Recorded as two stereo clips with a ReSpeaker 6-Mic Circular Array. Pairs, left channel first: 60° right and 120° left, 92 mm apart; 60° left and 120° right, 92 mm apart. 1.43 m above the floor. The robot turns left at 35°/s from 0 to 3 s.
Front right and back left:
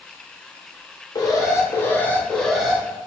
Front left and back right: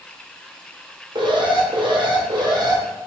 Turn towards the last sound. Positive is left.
turn(degrees=-165)